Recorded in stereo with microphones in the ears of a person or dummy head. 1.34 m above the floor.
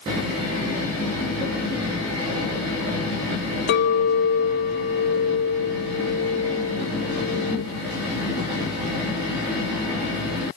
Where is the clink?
55° left (ahead or behind), 1.4 m.